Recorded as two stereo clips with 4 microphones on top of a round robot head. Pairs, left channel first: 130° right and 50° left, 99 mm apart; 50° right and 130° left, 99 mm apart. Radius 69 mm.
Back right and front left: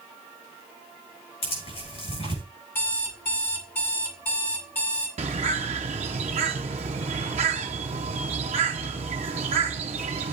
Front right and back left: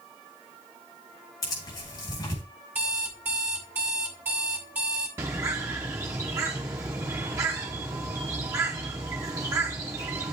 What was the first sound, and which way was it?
Tearing paper, 105° right.